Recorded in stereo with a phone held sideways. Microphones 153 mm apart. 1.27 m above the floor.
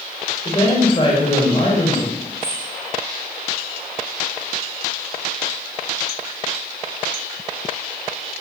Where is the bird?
40° right (ahead or behind), 3 m.